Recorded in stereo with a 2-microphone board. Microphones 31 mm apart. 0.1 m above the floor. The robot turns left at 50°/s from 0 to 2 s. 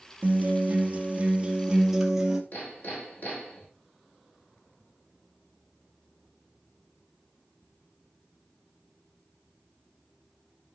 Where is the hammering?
75° left (ahead or behind), 5 m.